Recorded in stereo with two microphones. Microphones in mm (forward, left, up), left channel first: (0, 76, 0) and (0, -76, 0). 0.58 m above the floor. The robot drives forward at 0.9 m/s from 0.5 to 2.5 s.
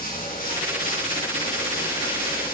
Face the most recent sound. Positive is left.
turn(degrees=85)